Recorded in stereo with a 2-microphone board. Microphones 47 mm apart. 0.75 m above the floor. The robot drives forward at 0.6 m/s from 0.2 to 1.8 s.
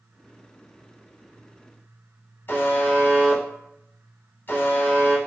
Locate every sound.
2.5 s a buzzer: 45° left (ahead or behind), 0.9 m